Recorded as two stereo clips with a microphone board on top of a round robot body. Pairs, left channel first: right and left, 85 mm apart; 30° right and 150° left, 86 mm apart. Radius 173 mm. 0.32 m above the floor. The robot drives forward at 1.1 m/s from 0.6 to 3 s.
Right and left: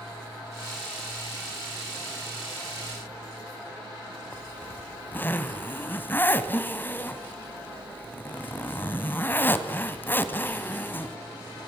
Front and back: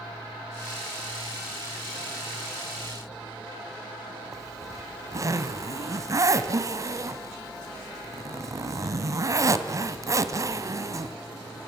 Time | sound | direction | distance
4.3 | a zipper | 155° right | 1.4 m